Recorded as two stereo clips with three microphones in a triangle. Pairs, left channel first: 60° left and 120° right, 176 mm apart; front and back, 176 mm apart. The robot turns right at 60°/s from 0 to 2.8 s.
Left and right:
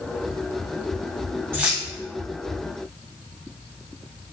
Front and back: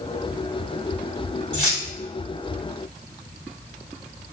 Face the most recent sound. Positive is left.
turn(degrees=30)